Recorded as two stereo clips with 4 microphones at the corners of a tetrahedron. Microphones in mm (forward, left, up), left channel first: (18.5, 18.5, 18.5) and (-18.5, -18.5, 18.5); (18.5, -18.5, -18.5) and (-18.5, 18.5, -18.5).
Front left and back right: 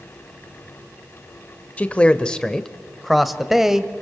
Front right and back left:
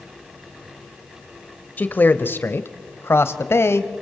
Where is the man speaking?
10° right, 1.4 m; by 3.9 s 55° right, 2.0 m.